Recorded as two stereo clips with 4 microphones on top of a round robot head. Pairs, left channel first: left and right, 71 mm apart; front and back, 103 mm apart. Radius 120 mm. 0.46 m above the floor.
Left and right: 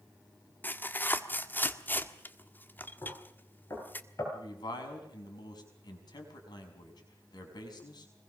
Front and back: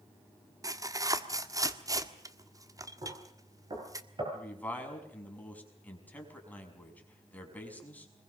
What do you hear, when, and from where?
0.6 s tearing paper: 140° left, 1.7 m
3.0 s knocking: 135° left, 9.5 m
4.3 s a man speaking: 70° left, 5.5 m